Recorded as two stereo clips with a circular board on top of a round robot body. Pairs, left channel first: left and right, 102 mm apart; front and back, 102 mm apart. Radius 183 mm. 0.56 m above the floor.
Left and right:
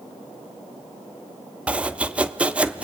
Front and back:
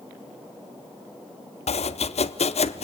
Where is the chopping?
10° right, 0.8 m.